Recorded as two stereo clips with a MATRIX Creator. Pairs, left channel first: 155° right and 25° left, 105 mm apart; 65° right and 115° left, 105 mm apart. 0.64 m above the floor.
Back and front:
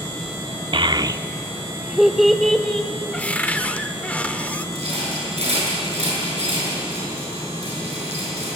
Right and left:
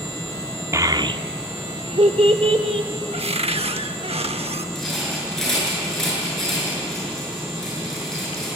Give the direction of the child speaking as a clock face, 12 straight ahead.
10 o'clock.